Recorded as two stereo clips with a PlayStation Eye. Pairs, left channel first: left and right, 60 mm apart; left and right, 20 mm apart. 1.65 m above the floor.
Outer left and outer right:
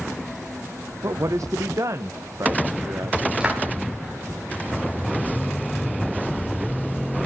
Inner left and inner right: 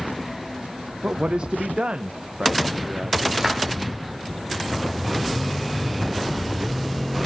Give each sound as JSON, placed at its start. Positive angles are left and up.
{"t": 1.0, "sound": "a man speaking", "side_deg": -65, "distance_m": 1.1}
{"t": 3.4, "sound": "a clap", "side_deg": -15, "distance_m": 8.0}